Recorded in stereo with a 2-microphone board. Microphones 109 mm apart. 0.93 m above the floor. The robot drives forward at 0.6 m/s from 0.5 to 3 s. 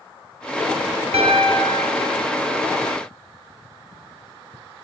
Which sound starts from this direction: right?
A piano, at 1.1 s.